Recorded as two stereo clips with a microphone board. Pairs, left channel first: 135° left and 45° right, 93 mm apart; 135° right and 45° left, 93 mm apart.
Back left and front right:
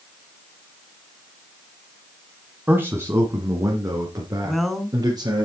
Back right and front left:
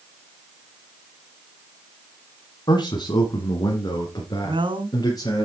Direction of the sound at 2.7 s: 110° right.